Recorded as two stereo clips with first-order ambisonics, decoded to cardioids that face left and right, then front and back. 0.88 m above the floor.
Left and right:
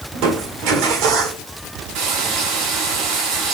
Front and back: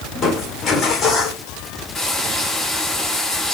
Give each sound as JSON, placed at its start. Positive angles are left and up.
{"t": 0.1, "sound": "crushing", "azimuth_deg": -65, "distance_m": 1.5}
{"t": 1.9, "sound": "frying", "azimuth_deg": -85, "distance_m": 2.5}